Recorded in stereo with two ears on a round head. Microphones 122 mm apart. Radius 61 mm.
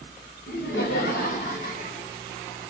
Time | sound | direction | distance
0.5 | laughter | 70° left (ahead or behind) | 1.2 m